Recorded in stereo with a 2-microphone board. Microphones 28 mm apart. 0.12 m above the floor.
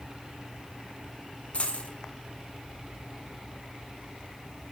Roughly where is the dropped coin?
Left.